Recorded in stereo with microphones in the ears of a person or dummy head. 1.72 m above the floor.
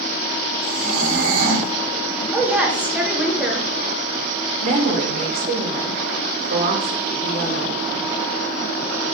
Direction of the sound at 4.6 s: 55° right (ahead or behind).